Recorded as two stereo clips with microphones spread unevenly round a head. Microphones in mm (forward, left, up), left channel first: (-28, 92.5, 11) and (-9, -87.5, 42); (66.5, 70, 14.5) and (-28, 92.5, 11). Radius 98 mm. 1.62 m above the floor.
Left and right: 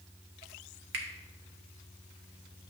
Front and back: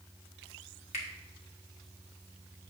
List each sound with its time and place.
0.9 s a finger snap: 50° right, 1.3 m